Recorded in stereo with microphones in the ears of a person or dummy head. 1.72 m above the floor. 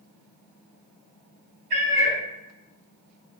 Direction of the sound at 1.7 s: 45° right (ahead or behind).